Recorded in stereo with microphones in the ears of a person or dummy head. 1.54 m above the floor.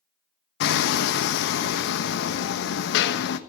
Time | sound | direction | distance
0.6 | hammering | 65° left (ahead or behind) | 1.2 m